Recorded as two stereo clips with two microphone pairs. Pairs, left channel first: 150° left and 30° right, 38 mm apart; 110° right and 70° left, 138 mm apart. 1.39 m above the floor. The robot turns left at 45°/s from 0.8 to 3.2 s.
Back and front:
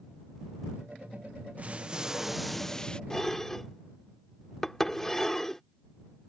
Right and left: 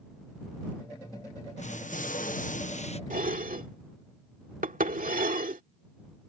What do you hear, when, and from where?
1.6 s an explosion: 80° right; by 3.0 s 145° right
3.1 s dishes clattering: 75° left; by 5.6 s 70° left